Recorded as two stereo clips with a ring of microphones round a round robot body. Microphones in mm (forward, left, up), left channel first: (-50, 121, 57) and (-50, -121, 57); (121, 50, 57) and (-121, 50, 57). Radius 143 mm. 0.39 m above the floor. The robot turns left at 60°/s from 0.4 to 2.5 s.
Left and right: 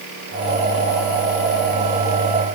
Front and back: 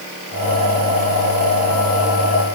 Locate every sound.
Only background noise.